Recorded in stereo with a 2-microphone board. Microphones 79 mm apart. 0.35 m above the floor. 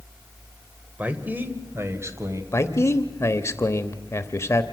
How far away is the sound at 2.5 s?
About 1.0 m.